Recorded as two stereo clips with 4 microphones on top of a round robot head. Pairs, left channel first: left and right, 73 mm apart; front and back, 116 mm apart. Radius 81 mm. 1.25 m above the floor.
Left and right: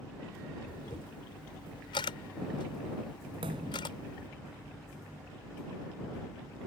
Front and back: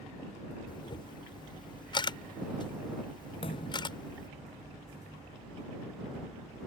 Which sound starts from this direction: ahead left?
A camera shutter, at 0.7 s.